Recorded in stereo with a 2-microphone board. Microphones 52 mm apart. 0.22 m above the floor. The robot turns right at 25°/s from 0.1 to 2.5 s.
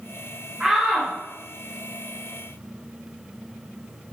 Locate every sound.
0.6 s a shout: 15° right (ahead or behind), 3 m; by 1.1 s 5° right (ahead or behind), 3 m